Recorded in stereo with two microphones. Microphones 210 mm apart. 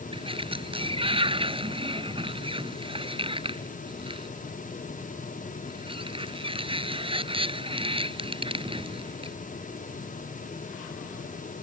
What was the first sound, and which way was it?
A sliding door, 25° right (ahead or behind).